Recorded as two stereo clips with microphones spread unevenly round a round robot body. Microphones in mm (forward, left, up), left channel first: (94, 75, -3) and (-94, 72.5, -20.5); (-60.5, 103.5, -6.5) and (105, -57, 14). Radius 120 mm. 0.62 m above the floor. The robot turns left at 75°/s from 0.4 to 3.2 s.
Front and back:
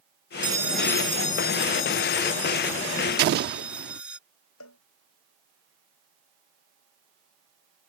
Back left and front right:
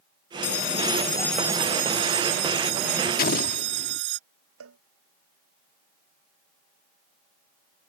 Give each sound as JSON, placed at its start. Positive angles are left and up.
{"t": 0.4, "sound": "a bell", "azimuth_deg": 115}
{"t": 3.2, "sound": "an explosion", "azimuth_deg": 180}
{"t": 4.6, "sound": "a cowbell", "azimuth_deg": -15}